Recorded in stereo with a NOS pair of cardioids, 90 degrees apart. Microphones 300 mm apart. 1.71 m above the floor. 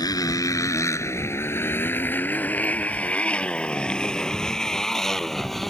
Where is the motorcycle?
15° left; by 5.7 s straight ahead.